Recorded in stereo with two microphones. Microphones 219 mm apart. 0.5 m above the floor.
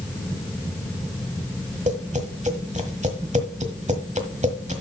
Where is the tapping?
35° right (ahead or behind), 1.4 m.